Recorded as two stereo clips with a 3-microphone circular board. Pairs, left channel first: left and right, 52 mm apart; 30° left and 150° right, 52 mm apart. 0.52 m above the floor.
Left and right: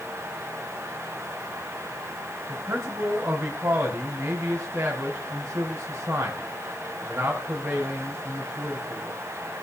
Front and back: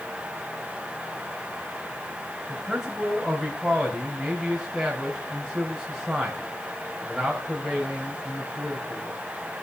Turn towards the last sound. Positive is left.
turn(degrees=-55)